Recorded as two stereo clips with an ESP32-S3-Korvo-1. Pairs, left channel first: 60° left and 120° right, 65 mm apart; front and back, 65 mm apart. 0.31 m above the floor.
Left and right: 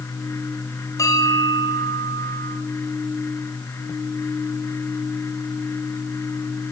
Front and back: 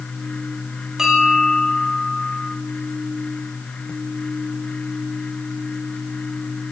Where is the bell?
95° left, 7 m.